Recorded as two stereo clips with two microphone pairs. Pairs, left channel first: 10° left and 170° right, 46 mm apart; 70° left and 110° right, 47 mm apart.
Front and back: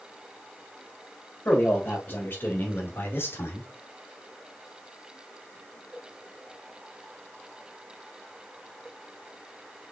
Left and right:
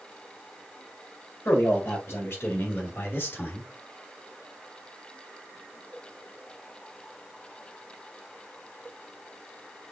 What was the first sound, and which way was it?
A man speaking, 45° left.